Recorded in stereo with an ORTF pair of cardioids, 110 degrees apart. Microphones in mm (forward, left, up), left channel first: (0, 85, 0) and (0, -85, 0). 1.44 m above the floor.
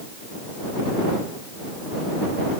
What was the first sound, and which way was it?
Only background noise.